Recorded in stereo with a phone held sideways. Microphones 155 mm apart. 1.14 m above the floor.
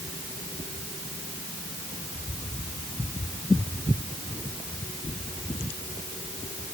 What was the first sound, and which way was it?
Only background noise.